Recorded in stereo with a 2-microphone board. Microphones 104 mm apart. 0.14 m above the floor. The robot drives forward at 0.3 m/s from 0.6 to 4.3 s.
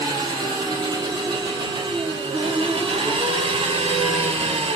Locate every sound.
0.0 s an engine running: 40° right (ahead or behind), 1.7 m; by 4.8 s 70° right (ahead or behind), 1.2 m